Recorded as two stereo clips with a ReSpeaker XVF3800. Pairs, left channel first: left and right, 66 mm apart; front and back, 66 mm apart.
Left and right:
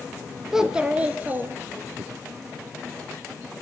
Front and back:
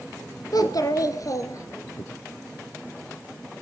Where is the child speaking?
5° right, 1.6 m; by 2.0 s 40° right, 2 m.